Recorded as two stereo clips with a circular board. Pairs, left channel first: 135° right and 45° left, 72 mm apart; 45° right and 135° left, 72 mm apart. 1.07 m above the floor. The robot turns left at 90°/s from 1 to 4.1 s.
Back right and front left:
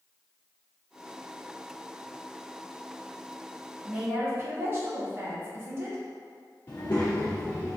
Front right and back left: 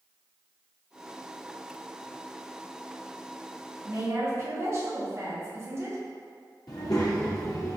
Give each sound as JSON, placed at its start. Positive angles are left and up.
{"t": 3.8, "sound": "a woman speaking", "azimuth_deg": 115, "distance_m": 1.1}
{"t": 6.7, "sound": "a child speaking", "azimuth_deg": -80, "distance_m": 0.5}